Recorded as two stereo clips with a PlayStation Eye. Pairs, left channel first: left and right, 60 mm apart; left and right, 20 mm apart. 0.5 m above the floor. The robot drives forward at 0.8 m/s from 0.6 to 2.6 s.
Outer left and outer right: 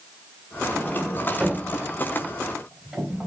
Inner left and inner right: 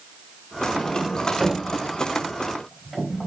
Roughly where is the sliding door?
Centre.